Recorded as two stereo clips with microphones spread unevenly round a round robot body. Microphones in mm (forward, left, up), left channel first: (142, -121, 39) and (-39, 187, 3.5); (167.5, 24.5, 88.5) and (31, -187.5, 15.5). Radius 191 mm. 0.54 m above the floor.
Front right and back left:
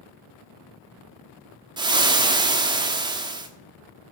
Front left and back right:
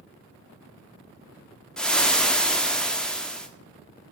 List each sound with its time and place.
1.8 s frying: 175° left, 1.0 m